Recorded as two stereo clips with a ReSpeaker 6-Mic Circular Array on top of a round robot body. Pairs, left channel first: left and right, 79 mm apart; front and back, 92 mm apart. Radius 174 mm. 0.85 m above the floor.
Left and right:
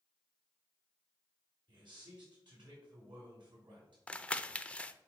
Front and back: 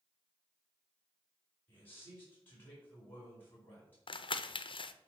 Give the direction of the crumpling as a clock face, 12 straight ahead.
12 o'clock.